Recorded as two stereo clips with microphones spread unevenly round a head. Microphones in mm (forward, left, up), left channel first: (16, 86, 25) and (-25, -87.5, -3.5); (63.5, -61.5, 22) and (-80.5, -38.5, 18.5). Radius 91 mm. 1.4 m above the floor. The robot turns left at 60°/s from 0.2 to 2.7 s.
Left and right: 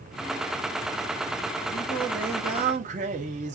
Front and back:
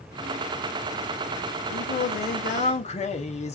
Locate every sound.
1.7 s singing: 5° left, 1.1 m; by 3.5 s 55° right, 1.1 m